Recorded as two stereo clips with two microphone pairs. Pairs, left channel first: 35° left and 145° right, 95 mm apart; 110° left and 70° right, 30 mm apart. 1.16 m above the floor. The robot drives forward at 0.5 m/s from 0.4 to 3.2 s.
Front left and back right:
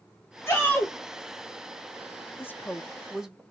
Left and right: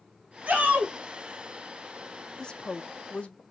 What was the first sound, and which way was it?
A shout, 30° right.